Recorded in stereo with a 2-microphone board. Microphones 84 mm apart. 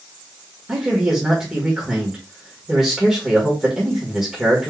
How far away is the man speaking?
About 1.5 m.